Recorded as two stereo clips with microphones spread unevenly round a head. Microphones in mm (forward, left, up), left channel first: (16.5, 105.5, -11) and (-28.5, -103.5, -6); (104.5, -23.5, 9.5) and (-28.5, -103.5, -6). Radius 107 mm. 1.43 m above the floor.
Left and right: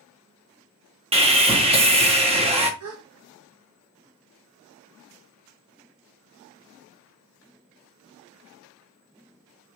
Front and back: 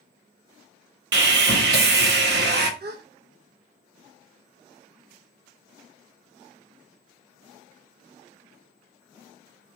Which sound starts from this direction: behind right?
A gasp, at 2.8 s.